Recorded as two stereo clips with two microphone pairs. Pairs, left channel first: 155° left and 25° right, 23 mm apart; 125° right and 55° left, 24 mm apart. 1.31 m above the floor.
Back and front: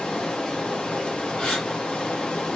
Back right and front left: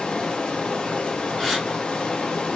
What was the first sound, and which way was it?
Running water, 165° right.